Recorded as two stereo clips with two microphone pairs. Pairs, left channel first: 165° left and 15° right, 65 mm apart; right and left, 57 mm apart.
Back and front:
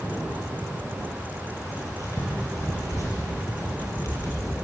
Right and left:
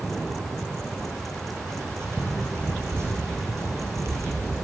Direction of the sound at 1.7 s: 130° left.